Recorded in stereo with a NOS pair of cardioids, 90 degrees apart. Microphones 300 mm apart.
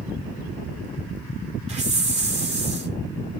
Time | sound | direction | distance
1.7 | a hiss | 20° right | 3 m